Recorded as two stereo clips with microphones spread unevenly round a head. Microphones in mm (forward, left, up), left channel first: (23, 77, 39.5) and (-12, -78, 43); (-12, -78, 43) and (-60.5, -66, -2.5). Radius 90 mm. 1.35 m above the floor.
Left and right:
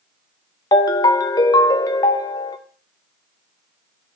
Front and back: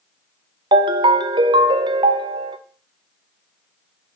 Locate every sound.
0.7 s a ringtone: 140° left, 0.6 m